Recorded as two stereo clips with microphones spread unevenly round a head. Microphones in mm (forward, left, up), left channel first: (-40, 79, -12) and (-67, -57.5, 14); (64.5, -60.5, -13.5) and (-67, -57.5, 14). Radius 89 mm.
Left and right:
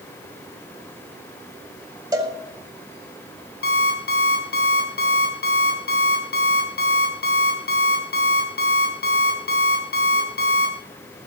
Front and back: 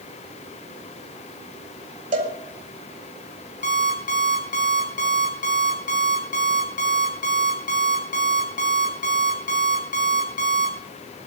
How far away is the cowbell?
About 4.5 m.